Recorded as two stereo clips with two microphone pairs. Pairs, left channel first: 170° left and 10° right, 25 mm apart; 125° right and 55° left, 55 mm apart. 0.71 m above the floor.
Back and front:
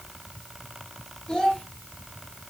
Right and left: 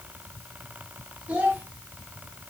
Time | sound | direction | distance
1.3 | a child speaking | 120° left | 1.5 m